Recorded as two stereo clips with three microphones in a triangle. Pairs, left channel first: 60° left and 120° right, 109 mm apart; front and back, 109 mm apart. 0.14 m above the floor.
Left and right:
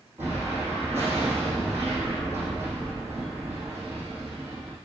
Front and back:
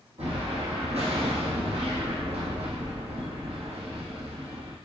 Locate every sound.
0.2 s an explosion: 170° left, 4 m